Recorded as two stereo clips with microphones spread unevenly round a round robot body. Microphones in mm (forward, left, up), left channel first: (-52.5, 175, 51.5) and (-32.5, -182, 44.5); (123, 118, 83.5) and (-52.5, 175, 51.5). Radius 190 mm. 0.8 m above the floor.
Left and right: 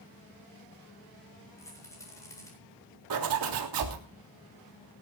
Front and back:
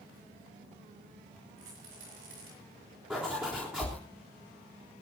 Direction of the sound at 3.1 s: 115° right.